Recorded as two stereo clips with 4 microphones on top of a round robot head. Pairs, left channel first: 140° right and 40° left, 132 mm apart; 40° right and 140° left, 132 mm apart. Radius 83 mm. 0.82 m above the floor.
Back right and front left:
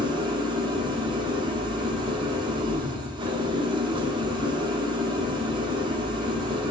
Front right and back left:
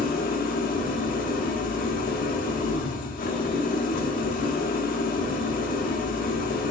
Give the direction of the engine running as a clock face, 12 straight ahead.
1 o'clock.